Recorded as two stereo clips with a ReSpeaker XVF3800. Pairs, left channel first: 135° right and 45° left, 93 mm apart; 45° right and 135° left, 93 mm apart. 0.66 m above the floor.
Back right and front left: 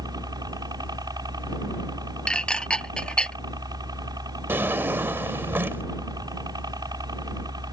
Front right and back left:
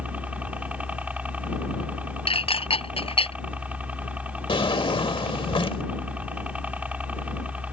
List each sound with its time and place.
0.0 s a helicopter: 65° left
2.3 s dishes clattering: 55° right
4.5 s a drawer: 20° right